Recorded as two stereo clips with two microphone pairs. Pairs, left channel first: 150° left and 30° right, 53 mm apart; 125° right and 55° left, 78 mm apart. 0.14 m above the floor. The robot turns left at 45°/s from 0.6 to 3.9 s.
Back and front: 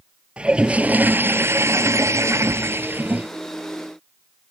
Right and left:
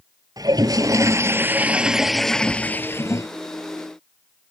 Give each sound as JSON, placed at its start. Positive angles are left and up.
{"t": 0.4, "sound": "a toilet flushing", "azimuth_deg": 35}